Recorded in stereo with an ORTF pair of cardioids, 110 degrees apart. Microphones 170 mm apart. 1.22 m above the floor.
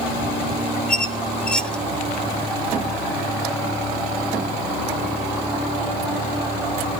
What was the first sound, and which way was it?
A squeak, 5° left.